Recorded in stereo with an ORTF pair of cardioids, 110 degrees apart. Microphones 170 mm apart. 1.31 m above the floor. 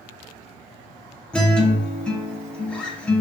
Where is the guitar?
5° left, 0.6 m.